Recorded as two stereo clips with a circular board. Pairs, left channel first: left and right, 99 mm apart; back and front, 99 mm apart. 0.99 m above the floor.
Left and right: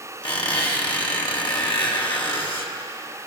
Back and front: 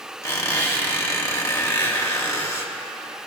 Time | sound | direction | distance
0.2 | a squeak | 120° left | 1.5 m